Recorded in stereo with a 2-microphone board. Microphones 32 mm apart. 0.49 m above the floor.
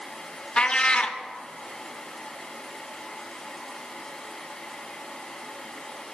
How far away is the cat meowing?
About 0.5 m.